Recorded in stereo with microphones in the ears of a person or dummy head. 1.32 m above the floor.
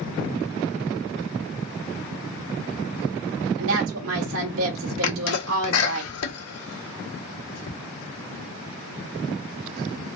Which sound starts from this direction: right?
A woman speaking, at 3.6 s.